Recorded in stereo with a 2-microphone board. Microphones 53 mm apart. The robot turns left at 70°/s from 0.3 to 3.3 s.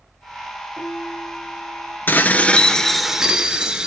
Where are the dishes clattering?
65° left, 1.0 m; by 3.9 s 20° right, 1.0 m.